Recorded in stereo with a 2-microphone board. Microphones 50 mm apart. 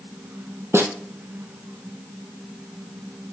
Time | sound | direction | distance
0.7 | a snare drum | 55° right (ahead or behind) | 0.7 m